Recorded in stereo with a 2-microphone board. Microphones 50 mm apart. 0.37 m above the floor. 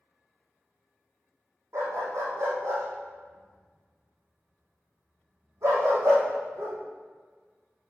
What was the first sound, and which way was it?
A dog barking, 80° right.